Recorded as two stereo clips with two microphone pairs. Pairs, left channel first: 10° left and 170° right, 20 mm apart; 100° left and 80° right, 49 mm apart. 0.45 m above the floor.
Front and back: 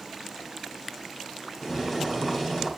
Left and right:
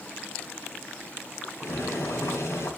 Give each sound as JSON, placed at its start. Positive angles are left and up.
{"t": 1.6, "sound": "boiling", "azimuth_deg": 80, "distance_m": 3.5}